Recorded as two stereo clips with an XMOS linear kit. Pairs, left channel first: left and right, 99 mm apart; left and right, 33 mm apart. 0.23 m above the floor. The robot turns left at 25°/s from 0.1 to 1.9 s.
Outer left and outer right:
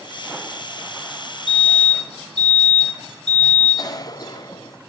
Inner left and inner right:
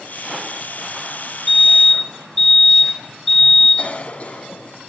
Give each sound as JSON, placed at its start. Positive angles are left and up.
{"t": 1.5, "sound": "a fire alarm", "side_deg": -5, "distance_m": 8.5}
{"t": 3.8, "sound": "a cough", "side_deg": 40, "distance_m": 1.5}